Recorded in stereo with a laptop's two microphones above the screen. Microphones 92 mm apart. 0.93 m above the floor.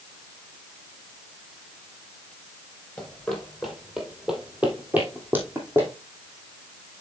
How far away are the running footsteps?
About 1.5 m.